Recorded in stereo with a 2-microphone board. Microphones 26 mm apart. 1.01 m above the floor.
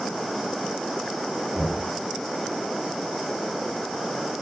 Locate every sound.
1.6 s knocking: 25° right (ahead or behind), 4.5 m